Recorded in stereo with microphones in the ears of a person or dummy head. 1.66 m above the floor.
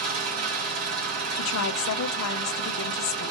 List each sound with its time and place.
0.0 s an engine running: 80° right, 3.5 m
1.4 s a woman speaking: 70° left (ahead or behind), 0.6 m